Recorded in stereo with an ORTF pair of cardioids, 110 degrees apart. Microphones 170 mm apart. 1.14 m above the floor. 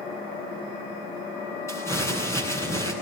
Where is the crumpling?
15° left, 9 m.